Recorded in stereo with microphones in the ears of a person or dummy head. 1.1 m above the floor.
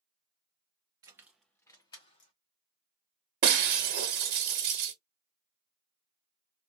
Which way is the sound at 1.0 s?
25° right (ahead or behind).